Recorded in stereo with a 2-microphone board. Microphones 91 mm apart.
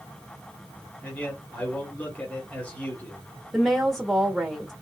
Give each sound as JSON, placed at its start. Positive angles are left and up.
{"t": 1.0, "sound": "a man speaking", "side_deg": 15, "distance_m": 1.5}
{"t": 3.5, "sound": "a woman speaking", "side_deg": 0, "distance_m": 0.9}